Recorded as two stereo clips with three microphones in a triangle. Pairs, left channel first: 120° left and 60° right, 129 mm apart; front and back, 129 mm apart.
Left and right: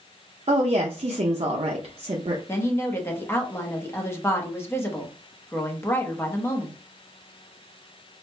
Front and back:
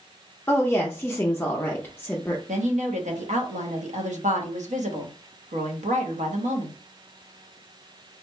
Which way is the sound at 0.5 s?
70° right.